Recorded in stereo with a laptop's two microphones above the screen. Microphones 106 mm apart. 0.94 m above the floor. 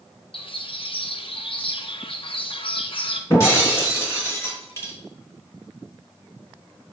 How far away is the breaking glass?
About 3.5 m.